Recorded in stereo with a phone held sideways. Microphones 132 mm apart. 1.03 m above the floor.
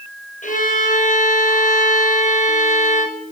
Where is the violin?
80° left, 3.5 m.